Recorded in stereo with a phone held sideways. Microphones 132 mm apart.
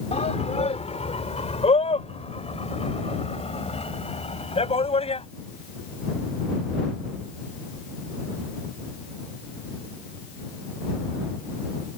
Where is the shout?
55° left (ahead or behind); by 5.2 s 50° left (ahead or behind).